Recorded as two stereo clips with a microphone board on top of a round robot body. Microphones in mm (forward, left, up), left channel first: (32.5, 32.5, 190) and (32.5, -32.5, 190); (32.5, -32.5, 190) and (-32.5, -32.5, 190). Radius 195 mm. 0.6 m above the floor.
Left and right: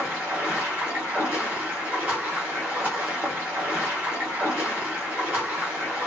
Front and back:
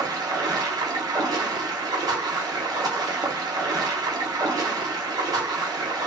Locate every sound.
0.0 s running water: 160° right, 0.7 m